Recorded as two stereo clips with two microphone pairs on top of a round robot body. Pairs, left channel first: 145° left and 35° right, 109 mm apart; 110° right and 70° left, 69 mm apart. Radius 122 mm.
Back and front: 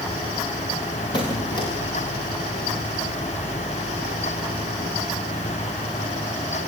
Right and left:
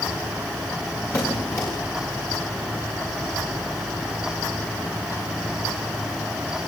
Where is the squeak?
165° right, 8.5 m.